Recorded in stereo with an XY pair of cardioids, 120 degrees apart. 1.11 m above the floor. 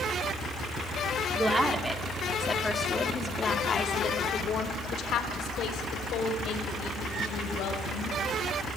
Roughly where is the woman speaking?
Ahead right.